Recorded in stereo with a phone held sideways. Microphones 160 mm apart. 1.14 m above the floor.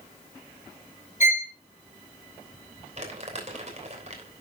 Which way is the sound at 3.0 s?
45° right (ahead or behind).